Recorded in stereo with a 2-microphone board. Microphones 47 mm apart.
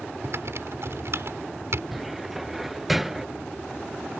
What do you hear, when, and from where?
0.2 s typing on a keyboard: 70° right (ahead or behind)
1.9 s a cupboard door: 5° right (ahead or behind)